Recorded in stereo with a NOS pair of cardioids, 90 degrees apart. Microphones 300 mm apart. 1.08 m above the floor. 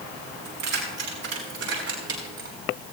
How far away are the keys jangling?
About 6 m.